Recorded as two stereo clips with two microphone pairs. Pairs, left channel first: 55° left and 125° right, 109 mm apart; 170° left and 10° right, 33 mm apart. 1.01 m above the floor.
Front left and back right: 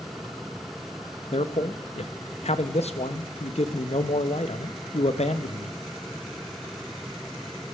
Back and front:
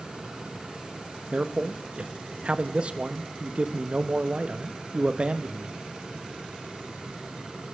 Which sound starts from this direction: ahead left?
A man speaking, at 1.3 s.